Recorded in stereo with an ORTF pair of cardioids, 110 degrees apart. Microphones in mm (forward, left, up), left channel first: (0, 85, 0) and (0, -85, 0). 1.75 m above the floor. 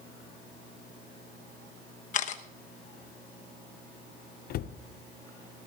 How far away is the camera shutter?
About 1.1 m.